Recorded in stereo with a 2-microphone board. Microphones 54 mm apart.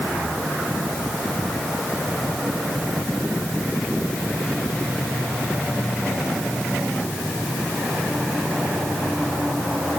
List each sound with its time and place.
Only background noise.